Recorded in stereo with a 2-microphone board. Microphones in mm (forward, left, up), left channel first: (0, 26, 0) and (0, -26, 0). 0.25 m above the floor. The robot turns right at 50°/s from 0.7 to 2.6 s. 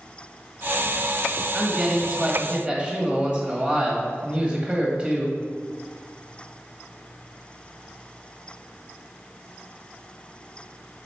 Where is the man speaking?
10° right (ahead or behind), 1.4 m; by 5.4 s 25° right (ahead or behind), 1.4 m.